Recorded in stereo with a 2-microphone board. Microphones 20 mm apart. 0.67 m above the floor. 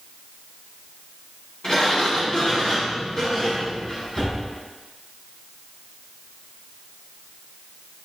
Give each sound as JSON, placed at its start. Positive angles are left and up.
{"t": 1.6, "sound": "a sliding door", "side_deg": 40, "distance_m": 3.5}